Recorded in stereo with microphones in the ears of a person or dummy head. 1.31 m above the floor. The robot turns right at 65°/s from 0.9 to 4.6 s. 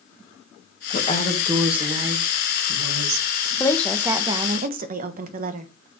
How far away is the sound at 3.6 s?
About 1.0 m.